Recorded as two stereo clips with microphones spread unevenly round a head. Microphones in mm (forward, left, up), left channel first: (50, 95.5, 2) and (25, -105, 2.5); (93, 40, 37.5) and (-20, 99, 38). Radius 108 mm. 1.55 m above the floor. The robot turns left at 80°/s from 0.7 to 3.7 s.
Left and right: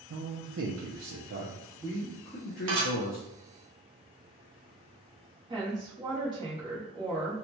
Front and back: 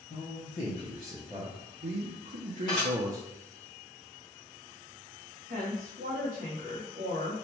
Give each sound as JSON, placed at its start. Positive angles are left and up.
{"t": 0.1, "sound": "a man speaking", "azimuth_deg": -75, "distance_m": 0.6}
{"t": 2.7, "sound": "dishes clattering", "azimuth_deg": -95, "distance_m": 1.3}
{"t": 5.5, "sound": "a woman speaking", "azimuth_deg": -170, "distance_m": 0.9}